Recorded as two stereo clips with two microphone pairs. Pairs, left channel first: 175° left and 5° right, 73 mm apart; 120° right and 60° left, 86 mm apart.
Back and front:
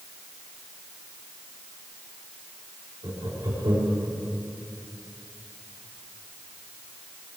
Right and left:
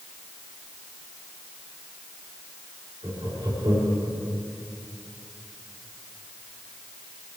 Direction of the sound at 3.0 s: 20° left.